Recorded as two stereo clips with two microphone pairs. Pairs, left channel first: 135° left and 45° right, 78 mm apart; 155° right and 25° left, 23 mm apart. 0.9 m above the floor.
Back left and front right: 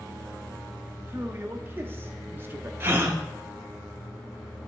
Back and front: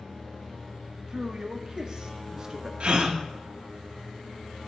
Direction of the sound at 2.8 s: 10° left.